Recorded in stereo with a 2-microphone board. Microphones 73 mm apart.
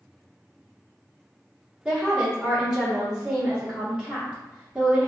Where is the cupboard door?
I don't hear a cupboard door.